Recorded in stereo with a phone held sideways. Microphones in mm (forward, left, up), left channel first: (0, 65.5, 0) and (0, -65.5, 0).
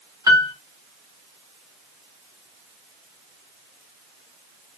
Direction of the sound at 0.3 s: 25° right (ahead or behind).